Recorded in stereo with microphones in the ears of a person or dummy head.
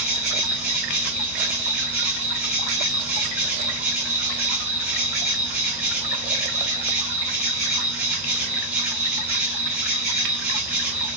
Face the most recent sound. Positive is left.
turn(degrees=-10)  # may be behind; listen again after turning